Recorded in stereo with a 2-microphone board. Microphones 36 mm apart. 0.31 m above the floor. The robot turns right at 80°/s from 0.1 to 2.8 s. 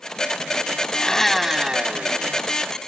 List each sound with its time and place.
0.9 s a blender: 150° left; by 2.6 s 80° right